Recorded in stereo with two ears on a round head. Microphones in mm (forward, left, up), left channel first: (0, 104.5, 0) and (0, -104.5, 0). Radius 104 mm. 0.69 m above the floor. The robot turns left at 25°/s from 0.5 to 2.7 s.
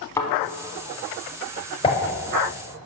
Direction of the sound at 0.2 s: 15° left (ahead or behind).